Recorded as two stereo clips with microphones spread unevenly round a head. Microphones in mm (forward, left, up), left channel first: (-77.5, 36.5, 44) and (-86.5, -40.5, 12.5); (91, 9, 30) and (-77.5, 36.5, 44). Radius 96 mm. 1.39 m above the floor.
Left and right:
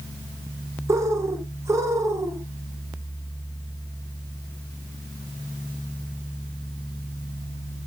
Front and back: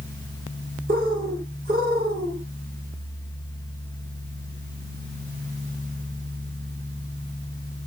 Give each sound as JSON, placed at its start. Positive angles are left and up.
{"t": 0.9, "sound": "a bird", "azimuth_deg": -145, "distance_m": 2.0}